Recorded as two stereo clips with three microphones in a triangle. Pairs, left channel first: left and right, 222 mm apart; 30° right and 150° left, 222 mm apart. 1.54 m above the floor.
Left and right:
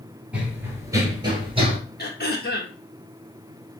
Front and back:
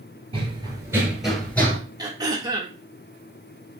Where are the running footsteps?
170° right, 1.8 m; by 1.8 s 90° right, 1.6 m.